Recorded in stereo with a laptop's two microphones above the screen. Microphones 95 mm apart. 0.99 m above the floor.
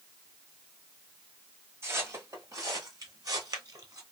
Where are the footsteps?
30° right (ahead or behind), 1.2 m; by 4.0 s 40° right (ahead or behind), 1.4 m.